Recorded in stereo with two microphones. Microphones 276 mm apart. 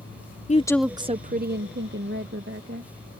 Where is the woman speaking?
25° left (ahead or behind); by 2.9 s 45° right (ahead or behind).